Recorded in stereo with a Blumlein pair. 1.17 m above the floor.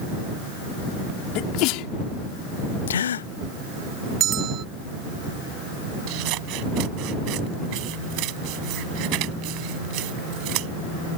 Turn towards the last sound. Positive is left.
turn(degrees=-40)